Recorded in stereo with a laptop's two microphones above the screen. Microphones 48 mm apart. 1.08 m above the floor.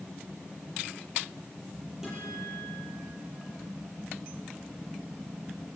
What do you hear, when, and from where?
2.0 s a guitar: 10° right (ahead or behind), 8 m